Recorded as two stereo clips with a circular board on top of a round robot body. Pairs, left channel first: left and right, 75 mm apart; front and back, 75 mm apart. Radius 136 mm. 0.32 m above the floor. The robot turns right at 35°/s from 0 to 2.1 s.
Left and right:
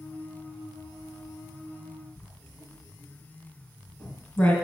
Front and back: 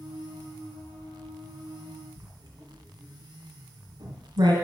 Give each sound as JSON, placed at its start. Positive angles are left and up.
{"t": 2.2, "sound": "writing", "azimuth_deg": 155, "distance_m": 1.8}